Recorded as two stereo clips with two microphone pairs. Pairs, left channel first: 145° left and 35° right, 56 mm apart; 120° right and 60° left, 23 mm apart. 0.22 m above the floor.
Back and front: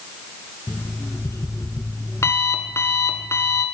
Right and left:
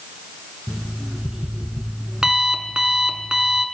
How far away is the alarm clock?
About 0.9 m.